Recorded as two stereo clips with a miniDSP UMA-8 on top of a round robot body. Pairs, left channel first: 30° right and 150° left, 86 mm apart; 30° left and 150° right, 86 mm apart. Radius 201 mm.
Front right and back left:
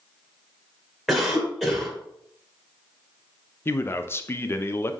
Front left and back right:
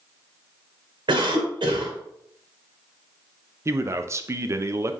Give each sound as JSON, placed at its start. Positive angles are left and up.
{"t": 1.1, "sound": "a cough", "azimuth_deg": -120, "distance_m": 3.0}
{"t": 3.6, "sound": "a man speaking", "azimuth_deg": -90, "distance_m": 0.7}